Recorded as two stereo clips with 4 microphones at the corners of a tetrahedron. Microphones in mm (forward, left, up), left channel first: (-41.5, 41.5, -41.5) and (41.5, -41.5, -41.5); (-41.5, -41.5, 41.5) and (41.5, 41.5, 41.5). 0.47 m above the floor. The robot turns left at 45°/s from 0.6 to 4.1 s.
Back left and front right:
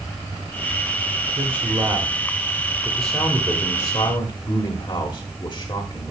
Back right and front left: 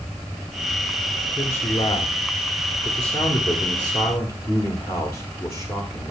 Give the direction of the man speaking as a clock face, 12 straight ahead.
2 o'clock.